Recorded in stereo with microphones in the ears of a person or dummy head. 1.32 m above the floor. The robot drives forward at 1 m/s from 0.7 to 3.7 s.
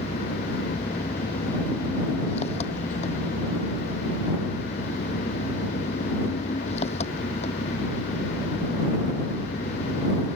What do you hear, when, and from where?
0.0 s an engine running: 35° left (ahead or behind); by 10.4 s 40° left (ahead or behind)